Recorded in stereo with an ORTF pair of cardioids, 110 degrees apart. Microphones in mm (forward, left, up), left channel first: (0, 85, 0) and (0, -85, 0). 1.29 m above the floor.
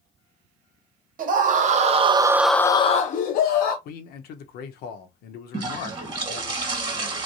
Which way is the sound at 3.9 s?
70° left.